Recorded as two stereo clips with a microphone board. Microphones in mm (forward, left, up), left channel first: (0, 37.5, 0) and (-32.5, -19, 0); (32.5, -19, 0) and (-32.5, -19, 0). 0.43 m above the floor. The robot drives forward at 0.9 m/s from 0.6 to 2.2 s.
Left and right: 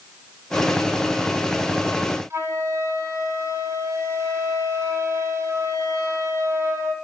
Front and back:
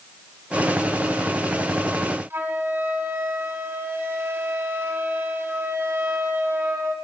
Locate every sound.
2.3 s a flute: 140° right, 1.8 m